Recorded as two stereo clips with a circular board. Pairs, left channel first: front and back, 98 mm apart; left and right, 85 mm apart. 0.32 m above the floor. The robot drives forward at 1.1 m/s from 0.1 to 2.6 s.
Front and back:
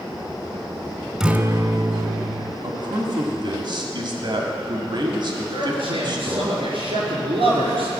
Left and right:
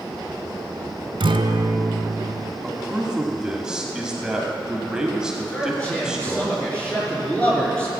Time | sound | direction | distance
1.2 | a guitar | 95° right | 0.7 m
2.6 | a man speaking | 170° right | 1.5 m
5.5 | a man speaking | 165° left | 4 m